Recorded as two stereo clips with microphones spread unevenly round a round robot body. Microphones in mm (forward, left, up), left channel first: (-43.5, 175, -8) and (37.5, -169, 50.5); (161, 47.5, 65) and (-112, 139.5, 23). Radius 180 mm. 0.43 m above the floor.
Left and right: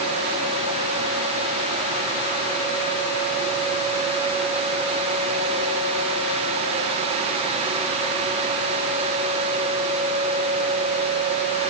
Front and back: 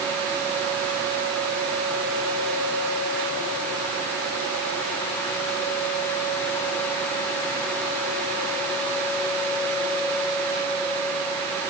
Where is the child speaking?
I don't hear a child speaking.